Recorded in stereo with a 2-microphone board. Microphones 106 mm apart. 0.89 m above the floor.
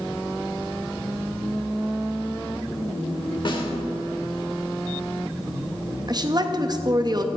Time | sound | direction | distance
3.5 | a snare drum | 50° left (ahead or behind) | 1.5 m
6.1 | a woman speaking | 40° right (ahead or behind) | 0.8 m